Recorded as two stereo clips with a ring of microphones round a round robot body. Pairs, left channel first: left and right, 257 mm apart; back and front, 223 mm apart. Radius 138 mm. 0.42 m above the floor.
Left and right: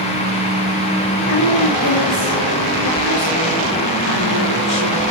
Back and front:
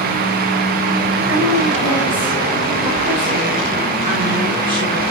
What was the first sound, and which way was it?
A woman speaking, 130° left.